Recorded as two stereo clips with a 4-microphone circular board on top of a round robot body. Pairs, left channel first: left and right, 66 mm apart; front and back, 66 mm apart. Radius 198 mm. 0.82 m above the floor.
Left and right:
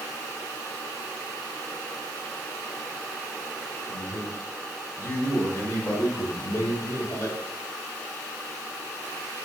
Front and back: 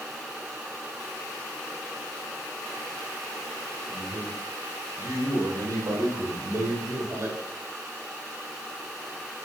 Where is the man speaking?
155° left, 6 m; by 7.4 s 135° left, 3 m.